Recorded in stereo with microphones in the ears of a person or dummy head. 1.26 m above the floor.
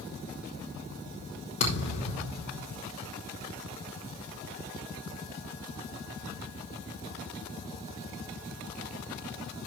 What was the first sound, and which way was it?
A thud, 45° left (ahead or behind).